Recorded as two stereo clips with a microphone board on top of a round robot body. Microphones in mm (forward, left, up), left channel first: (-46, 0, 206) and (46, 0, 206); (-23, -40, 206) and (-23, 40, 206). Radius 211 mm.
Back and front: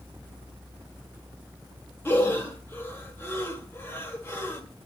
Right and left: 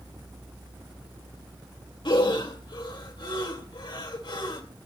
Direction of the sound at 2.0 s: 115° right.